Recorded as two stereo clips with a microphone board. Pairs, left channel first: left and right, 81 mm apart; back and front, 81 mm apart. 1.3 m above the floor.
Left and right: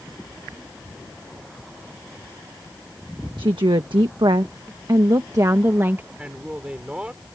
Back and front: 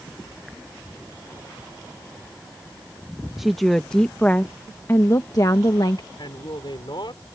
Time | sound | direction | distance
3.4 | a woman speaking | 90° right | ?
6.2 | a man speaking | 165° right | ?